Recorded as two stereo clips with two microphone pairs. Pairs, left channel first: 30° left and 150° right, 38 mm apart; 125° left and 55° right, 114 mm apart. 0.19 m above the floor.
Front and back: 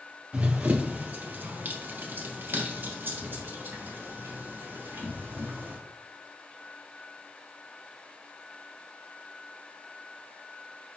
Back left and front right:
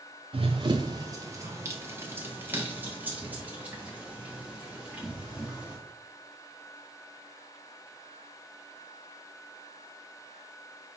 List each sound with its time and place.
0.3 s running footsteps: 95° right, 0.9 m; by 5.8 s 140° right, 4 m